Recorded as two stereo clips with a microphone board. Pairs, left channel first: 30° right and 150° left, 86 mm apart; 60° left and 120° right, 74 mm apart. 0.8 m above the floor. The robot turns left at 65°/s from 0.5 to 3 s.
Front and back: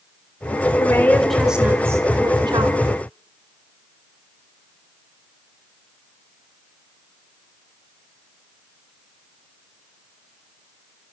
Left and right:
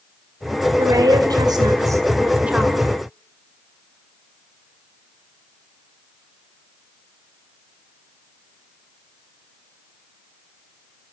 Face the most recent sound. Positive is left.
turn(degrees=135)